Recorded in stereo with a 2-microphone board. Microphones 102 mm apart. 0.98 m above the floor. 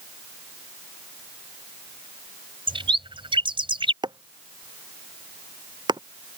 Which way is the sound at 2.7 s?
55° right (ahead or behind).